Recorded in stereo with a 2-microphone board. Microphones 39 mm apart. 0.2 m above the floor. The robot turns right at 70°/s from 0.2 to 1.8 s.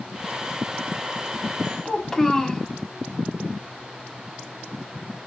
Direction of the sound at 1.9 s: 10° left (ahead or behind).